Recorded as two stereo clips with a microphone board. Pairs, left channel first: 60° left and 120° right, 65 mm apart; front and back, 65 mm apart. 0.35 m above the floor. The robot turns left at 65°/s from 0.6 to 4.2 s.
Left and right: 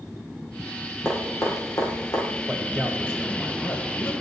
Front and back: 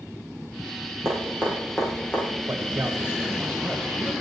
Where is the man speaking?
160° left, 2 m; by 4.1 s 55° left, 2 m.